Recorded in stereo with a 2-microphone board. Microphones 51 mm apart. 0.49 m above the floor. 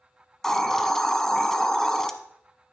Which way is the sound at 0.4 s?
10° left (ahead or behind).